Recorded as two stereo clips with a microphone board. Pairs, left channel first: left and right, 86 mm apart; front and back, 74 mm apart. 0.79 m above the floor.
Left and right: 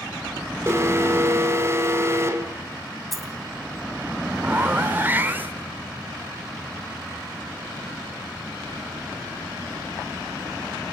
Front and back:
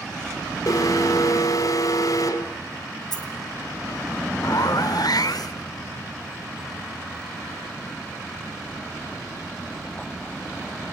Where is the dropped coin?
Straight ahead, 2.5 m.